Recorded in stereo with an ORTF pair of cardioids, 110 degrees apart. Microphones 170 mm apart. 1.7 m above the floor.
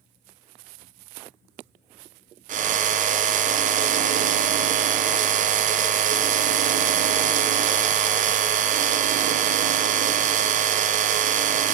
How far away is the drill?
About 0.6 m.